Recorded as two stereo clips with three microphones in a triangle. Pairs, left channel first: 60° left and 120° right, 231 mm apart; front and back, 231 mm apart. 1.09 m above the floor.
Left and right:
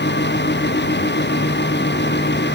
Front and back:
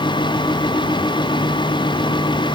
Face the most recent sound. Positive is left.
No sound to turn to.